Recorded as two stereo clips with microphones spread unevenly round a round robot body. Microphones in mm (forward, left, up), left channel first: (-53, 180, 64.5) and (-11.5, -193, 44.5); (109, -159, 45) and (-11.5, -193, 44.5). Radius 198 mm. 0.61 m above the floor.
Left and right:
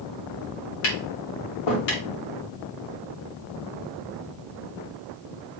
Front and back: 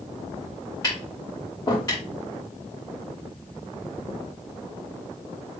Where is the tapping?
90° left, 2.5 m.